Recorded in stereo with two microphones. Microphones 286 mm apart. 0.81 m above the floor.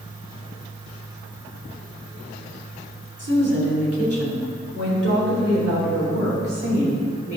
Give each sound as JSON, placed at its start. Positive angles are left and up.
{"t": 3.2, "sound": "a woman speaking", "side_deg": -65, "distance_m": 3.0}